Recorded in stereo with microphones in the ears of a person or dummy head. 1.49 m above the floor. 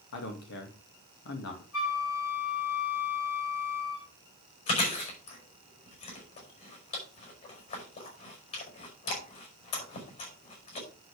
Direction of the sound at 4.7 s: 50° left (ahead or behind).